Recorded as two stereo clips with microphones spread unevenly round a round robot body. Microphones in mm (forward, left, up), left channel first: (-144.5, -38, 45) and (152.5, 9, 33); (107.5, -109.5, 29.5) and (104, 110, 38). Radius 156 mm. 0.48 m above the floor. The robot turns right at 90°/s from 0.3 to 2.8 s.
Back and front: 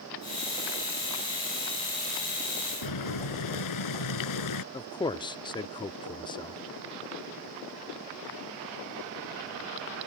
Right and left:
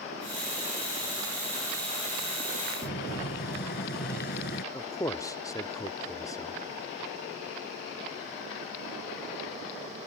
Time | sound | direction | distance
2.8 | boiling | 150° right | ?
4.7 | a man speaking | 120° right | ?